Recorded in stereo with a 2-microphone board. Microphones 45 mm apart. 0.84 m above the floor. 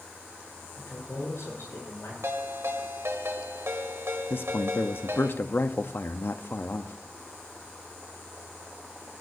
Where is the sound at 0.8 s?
75° left (ahead or behind), 9 m.